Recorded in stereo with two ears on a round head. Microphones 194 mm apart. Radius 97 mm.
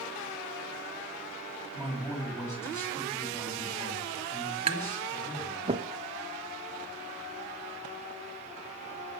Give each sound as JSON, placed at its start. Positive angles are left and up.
{"t": 1.7, "sound": "a man speaking", "side_deg": 10, "distance_m": 6.0}
{"t": 4.7, "sound": "tapping", "side_deg": -25, "distance_m": 0.7}